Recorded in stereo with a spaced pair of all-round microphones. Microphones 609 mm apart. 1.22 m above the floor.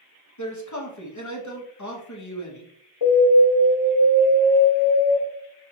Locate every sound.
0.4 s a man speaking: 30° left (ahead or behind), 1.2 m
3.0 s an alarm: 50° left (ahead or behind), 2 m